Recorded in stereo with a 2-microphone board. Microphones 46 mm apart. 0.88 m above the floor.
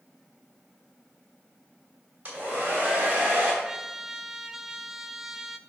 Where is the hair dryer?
35° right (ahead or behind), 3 m.